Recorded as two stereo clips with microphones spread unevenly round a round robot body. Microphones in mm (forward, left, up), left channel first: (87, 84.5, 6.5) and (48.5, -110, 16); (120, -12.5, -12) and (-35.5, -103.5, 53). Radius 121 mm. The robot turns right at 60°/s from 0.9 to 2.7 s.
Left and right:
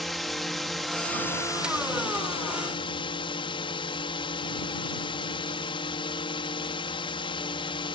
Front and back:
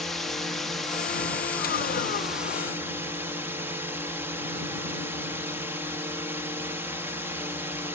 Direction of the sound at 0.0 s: 5° right.